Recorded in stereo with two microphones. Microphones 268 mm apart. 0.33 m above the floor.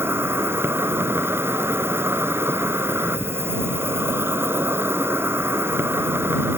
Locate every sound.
0.0 s an insect: 10° right (ahead or behind)